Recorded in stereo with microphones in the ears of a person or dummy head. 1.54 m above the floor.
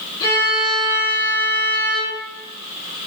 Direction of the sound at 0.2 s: 15° left (ahead or behind).